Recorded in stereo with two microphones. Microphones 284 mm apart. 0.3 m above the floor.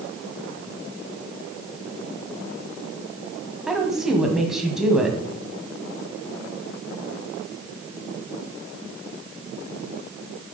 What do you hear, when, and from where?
3.7 s a woman speaking: centre (ahead or behind), 1.7 m